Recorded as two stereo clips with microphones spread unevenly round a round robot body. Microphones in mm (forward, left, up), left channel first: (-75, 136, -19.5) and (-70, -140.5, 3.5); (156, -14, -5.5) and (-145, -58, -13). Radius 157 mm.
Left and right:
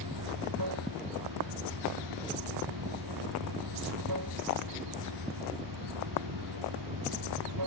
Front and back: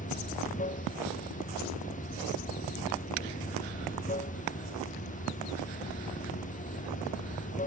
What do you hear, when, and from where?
0.0 s running water: 55° right